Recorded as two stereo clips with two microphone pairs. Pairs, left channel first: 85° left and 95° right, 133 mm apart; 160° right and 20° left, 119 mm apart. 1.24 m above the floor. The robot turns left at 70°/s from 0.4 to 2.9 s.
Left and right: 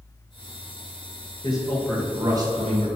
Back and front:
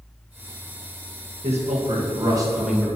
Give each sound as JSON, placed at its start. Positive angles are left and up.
{"t": 1.4, "sound": "a man speaking", "azimuth_deg": 30, "distance_m": 1.7}